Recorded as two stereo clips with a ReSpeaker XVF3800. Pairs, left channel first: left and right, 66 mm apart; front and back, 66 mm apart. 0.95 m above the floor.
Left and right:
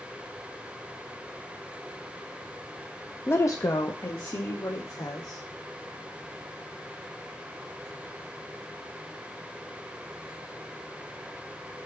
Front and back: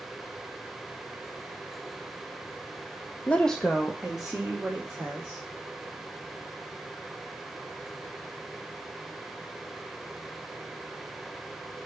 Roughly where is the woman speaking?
Ahead left.